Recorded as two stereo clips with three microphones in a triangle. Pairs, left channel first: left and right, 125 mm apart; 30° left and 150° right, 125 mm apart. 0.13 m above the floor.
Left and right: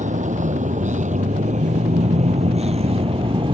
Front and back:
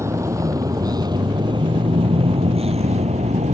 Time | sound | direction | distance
0.0 | a vehicle | 85° right | ?